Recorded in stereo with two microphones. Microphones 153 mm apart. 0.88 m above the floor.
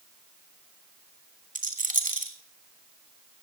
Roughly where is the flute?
I don't hear a flute.